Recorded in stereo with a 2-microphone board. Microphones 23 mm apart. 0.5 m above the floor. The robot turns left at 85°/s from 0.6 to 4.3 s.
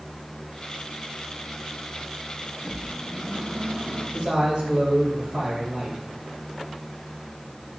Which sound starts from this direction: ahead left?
A microwave, at 2.6 s.